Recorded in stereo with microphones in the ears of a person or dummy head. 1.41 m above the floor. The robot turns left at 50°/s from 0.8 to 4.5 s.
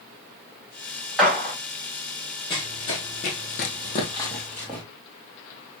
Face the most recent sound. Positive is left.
turn(degrees=5)  # may be behind; listen again after turning